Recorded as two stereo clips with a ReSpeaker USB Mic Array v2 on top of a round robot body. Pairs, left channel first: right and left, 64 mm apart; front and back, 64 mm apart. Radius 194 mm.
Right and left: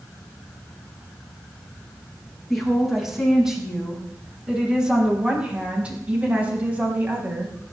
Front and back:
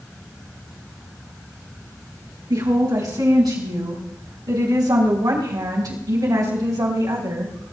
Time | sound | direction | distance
2.5 | a woman speaking | straight behind | 6 m